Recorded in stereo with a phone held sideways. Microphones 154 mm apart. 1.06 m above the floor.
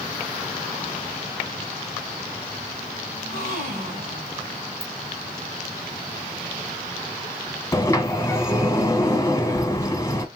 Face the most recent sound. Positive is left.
turn(degrees=20)  # may be behind; listen again after turning